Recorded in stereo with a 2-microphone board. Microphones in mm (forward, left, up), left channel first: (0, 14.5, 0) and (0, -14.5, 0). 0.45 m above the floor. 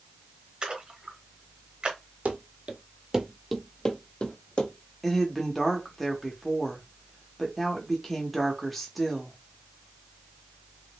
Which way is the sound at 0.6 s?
30° right (ahead or behind).